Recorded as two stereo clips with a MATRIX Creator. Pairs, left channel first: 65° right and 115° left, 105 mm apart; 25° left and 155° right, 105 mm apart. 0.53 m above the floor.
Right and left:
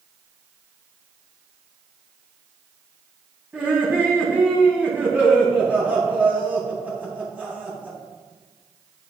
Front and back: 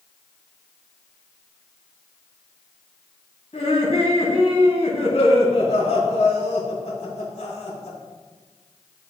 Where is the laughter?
35° left, 3 m.